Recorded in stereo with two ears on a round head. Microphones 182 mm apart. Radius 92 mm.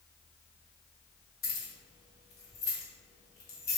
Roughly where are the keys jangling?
Left.